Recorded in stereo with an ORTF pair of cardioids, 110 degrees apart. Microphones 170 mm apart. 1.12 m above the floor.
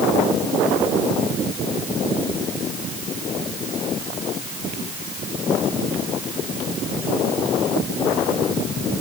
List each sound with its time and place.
Only background noise.